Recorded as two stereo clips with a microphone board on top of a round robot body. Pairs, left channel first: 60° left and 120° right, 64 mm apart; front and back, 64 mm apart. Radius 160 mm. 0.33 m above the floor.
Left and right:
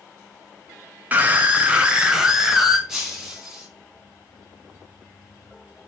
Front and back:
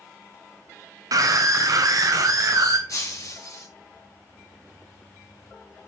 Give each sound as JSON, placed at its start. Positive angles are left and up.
{"t": 1.1, "sound": "a scream", "azimuth_deg": 180, "distance_m": 2.5}
{"t": 2.9, "sound": "breaking glass", "azimuth_deg": -40, "distance_m": 3.5}